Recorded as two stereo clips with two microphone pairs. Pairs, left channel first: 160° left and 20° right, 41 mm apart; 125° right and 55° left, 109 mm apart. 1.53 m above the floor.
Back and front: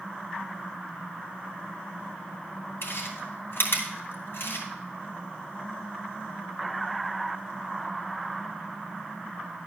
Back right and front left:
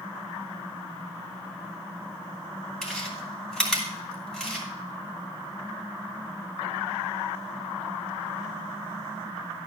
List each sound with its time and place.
2.8 s chewing: 150° left, 2.5 m